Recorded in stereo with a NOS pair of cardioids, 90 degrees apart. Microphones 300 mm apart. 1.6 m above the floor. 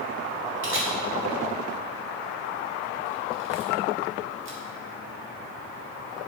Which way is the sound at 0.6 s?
40° right.